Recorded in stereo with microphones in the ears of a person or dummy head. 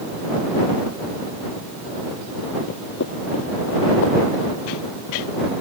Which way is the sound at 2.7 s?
55° left (ahead or behind).